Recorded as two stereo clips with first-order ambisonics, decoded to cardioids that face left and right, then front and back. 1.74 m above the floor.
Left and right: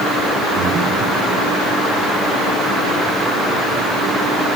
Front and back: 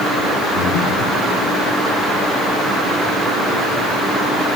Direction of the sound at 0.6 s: 5° right.